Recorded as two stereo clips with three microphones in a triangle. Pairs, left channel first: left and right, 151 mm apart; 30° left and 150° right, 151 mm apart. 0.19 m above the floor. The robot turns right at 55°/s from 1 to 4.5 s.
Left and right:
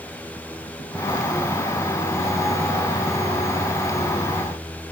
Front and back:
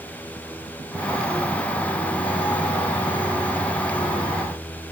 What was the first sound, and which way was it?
Only background noise.